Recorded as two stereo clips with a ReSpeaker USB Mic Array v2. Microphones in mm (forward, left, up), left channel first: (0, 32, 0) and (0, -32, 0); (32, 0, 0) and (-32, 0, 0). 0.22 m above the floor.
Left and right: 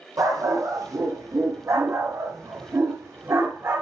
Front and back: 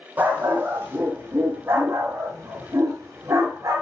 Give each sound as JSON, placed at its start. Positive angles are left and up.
{"t": 0.2, "sound": "a dog barking", "azimuth_deg": -115, "distance_m": 3.5}